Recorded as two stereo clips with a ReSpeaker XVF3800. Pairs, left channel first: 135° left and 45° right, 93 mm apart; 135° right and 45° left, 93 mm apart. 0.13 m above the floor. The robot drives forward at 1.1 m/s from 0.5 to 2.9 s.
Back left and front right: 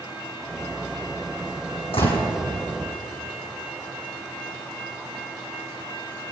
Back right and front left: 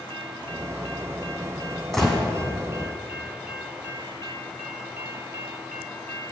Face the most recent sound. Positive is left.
turn(degrees=150)